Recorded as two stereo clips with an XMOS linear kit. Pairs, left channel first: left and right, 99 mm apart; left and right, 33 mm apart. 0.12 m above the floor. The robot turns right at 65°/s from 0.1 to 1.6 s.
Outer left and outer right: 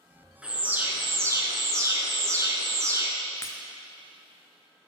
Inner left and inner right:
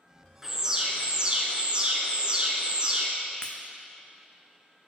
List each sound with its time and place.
0.4 s an alarm: 160° right, 0.8 m; by 3.1 s 85° right, 0.8 m
3.4 s breaking glass: 25° left (ahead or behind), 0.7 m